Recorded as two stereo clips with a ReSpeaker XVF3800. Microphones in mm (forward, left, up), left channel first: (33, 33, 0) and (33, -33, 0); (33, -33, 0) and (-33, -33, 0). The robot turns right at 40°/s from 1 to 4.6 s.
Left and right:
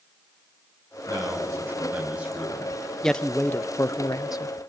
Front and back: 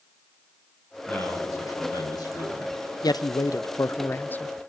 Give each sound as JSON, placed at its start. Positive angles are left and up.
{"t": 1.1, "sound": "a man speaking", "azimuth_deg": -60, "distance_m": 9.5}
{"t": 3.0, "sound": "a man speaking", "azimuth_deg": 5, "distance_m": 0.6}